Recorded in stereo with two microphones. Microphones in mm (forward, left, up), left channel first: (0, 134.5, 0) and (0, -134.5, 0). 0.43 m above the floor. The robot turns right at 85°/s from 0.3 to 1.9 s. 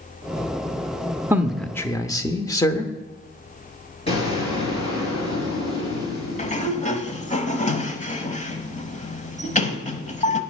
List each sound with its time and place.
1.3 s a man speaking: 10° right (ahead or behind), 0.8 m; by 2.9 s 10° left (ahead or behind), 0.8 m
4.1 s an explosion: 20° left (ahead or behind), 5 m
6.4 s a sliding door: 25° left (ahead or behind), 0.9 m